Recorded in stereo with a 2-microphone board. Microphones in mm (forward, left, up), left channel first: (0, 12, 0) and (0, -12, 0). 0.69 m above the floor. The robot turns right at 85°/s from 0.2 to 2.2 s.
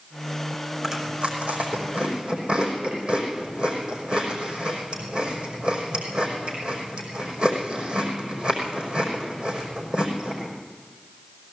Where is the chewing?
15° right (ahead or behind), 5 m; by 10.5 s 50° right (ahead or behind), 5 m.